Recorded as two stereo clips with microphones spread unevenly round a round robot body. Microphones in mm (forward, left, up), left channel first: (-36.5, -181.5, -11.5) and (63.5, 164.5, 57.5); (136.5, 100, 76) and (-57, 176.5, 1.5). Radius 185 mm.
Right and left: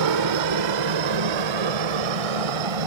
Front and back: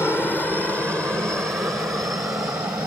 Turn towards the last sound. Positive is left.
turn(degrees=80)